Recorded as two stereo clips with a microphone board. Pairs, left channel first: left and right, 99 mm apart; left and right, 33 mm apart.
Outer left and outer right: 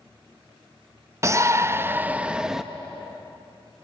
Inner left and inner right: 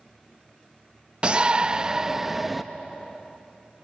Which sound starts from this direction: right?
A shout, at 1.2 s.